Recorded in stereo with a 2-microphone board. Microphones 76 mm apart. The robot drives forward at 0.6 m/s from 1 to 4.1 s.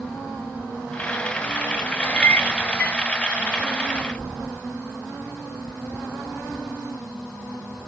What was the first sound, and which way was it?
A clink, 20° left (ahead or behind).